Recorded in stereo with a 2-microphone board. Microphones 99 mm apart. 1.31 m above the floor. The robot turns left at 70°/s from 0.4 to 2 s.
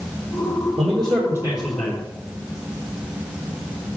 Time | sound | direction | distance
0.8 | a man speaking | 115° right | 1.2 m